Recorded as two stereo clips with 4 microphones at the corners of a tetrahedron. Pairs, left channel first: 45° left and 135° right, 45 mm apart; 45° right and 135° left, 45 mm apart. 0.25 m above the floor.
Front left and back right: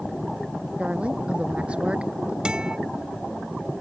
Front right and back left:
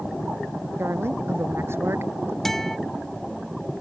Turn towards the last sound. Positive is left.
turn(degrees=-115)